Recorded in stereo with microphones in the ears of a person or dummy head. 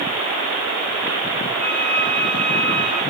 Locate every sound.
1.6 s a violin: 15° left (ahead or behind), 4.5 m